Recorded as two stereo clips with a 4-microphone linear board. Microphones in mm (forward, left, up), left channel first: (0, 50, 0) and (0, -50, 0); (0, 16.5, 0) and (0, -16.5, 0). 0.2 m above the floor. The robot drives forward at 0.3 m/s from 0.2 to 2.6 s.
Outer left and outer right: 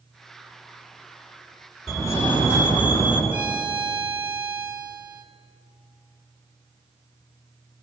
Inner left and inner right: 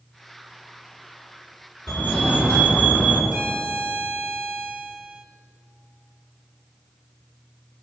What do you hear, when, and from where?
1.9 s a fire alarm: 30° left (ahead or behind), 4 m; by 3.2 s 25° left (ahead or behind), 4 m
3.3 s a violin: 15° right (ahead or behind), 1.4 m